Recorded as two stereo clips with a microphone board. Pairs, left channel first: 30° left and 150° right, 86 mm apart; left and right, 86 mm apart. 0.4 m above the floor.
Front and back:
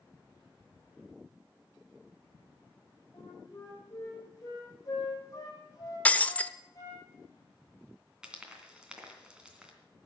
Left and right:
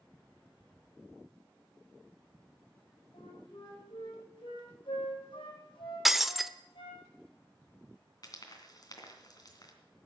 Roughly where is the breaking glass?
Ahead.